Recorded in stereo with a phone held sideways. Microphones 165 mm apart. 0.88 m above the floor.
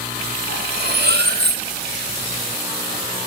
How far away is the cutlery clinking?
About 0.9 m.